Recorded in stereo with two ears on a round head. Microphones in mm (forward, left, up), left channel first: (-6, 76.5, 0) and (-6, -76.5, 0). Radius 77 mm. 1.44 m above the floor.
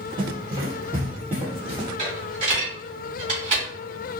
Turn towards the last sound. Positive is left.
turn(degrees=-40)  # may be behind; listen again after turning